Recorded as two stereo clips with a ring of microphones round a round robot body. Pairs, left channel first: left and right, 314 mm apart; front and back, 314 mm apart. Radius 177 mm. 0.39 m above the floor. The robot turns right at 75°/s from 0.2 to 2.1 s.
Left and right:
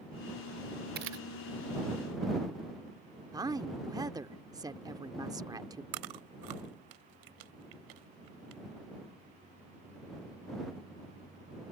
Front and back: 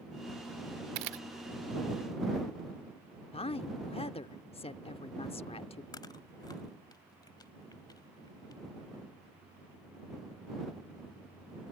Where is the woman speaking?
30° right.